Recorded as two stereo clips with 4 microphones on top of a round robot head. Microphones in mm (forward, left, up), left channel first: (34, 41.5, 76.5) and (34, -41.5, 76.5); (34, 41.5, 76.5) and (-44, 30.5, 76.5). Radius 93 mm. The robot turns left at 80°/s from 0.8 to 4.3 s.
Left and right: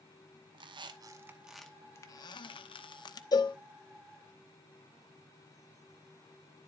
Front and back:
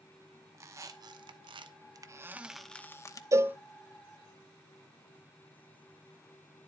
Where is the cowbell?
135° left, 0.8 m; by 3.6 s 115° left, 0.8 m.